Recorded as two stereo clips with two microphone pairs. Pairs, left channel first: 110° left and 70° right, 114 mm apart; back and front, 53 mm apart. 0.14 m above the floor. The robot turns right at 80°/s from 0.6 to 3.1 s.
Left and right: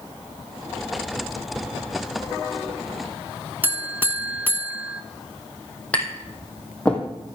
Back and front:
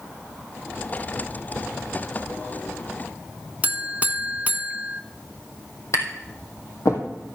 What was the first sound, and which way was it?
A buzzer, 10° right.